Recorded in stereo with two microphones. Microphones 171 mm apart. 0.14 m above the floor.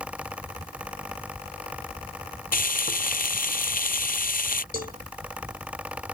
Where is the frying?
60° left (ahead or behind).